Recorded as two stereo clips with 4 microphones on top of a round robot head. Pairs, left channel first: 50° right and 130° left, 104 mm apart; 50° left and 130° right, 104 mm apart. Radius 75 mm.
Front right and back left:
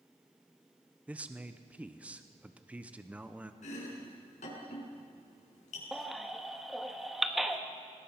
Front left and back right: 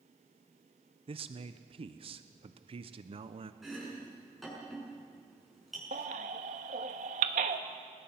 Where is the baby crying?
140° right, 1.1 m.